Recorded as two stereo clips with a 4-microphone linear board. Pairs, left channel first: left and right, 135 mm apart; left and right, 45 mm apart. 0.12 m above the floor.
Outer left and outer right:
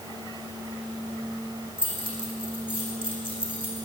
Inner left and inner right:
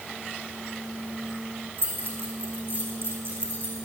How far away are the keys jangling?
About 4.5 m.